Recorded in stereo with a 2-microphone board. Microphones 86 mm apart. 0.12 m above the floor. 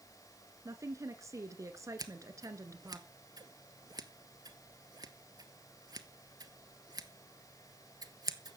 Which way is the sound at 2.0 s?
50° right (ahead or behind).